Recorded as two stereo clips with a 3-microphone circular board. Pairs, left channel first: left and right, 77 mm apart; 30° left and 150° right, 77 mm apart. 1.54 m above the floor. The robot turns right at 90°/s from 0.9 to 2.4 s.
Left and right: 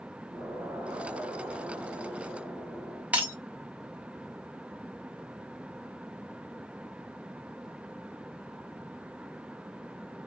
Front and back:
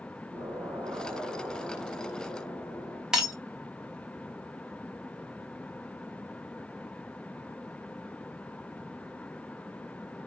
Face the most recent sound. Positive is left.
turn(degrees=-85)